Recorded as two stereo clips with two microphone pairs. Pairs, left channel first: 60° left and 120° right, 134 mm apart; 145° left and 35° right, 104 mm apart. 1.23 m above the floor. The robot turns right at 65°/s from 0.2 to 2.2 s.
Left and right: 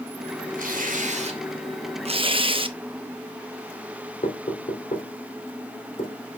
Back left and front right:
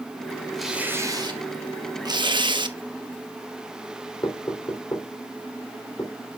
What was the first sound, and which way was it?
Tearing paper, 125° right.